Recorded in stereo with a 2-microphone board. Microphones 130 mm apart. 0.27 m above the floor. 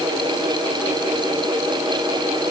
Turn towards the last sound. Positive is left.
No sound to turn to.